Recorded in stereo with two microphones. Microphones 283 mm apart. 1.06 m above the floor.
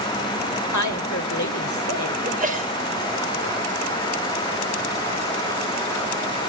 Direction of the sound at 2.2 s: 30° right (ahead or behind).